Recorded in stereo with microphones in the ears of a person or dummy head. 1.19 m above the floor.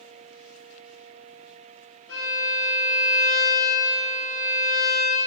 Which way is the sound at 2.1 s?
80° left.